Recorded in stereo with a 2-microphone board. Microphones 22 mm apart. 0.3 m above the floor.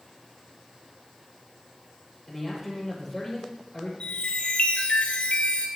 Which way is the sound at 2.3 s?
15° left (ahead or behind).